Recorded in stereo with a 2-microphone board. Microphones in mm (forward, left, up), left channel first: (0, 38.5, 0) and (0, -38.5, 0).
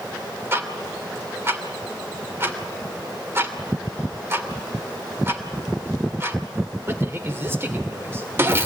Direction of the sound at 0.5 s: 30° right (ahead or behind).